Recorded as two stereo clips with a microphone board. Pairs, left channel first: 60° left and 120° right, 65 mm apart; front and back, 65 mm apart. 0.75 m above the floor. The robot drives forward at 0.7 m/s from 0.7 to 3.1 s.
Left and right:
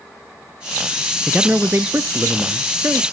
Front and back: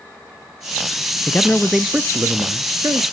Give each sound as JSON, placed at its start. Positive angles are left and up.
{"t": 1.3, "sound": "a man speaking", "azimuth_deg": -45, "distance_m": 0.6}